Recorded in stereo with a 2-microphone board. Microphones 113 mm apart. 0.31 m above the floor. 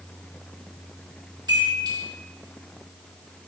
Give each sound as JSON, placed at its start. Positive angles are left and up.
{"t": 1.5, "sound": "a chime", "side_deg": -40, "distance_m": 4.5}